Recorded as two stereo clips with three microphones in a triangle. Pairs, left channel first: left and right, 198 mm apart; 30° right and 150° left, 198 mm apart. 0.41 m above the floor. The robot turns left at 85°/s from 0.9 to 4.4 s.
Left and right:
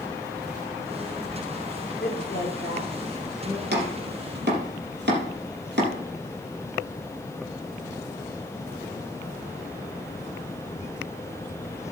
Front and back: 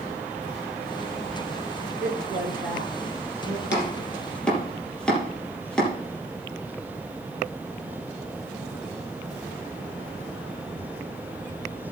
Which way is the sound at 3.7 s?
55° right.